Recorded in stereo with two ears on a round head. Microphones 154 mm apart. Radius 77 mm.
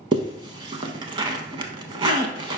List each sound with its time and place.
0.1 s a zipper: 30° right (ahead or behind), 0.6 m